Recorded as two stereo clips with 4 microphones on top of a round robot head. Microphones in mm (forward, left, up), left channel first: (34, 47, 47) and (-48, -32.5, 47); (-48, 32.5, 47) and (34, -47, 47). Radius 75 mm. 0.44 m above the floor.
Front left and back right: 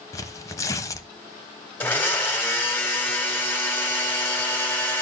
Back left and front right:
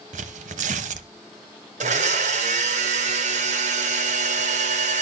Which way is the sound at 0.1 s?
20° right.